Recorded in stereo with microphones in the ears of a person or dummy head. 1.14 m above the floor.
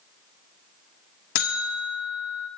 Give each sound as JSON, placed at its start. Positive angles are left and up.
{"t": 1.4, "sound": "a buzzer", "side_deg": 55, "distance_m": 1.6}